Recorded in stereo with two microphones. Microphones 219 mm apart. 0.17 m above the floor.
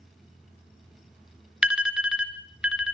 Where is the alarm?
5° right (ahead or behind), 1.9 m.